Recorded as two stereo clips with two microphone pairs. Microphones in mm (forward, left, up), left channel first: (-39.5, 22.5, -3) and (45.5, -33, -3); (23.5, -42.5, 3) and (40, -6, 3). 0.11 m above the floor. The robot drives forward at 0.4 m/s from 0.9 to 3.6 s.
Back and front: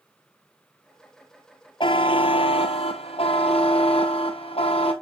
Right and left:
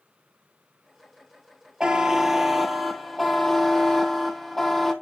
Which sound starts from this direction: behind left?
A buzzer, at 1.8 s.